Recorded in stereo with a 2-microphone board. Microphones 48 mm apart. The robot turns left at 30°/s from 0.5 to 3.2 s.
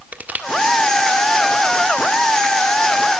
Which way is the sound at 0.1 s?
35° right (ahead or behind).